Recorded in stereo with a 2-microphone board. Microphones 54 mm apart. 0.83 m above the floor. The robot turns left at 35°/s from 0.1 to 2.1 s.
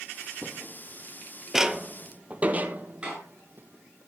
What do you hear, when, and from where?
0.4 s footsteps: 30° left (ahead or behind), 0.9 m; by 4.0 s 40° right (ahead or behind), 1.8 m
3.0 s a door slam: 15° right (ahead or behind), 10 m